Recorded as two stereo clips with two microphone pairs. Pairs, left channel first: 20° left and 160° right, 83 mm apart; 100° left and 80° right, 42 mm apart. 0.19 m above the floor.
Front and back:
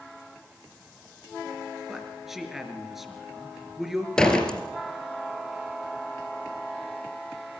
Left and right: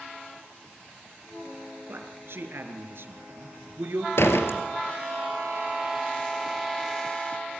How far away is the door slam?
About 3 m.